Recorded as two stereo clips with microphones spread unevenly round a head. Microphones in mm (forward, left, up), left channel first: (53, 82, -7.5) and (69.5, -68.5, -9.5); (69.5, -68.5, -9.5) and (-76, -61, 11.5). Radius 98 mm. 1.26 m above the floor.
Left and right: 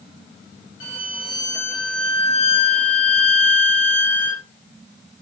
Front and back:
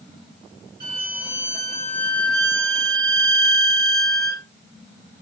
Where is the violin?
105° left, 1.2 m.